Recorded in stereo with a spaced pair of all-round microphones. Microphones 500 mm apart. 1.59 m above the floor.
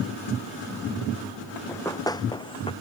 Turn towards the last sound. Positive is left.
turn(degrees=10)  # may be behind; listen again after turning